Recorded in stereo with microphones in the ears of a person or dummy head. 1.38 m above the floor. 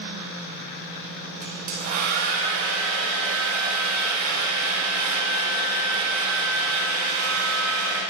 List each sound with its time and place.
1.4 s a hair dryer: 50° right (ahead or behind), 2.0 m